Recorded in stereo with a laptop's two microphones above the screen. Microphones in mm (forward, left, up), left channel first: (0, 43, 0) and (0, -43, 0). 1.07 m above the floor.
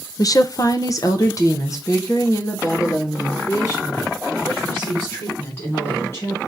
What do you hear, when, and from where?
0.2 s a woman speaking: 45° left (ahead or behind), 0.5 m; by 6.4 s 35° left (ahead or behind), 3.5 m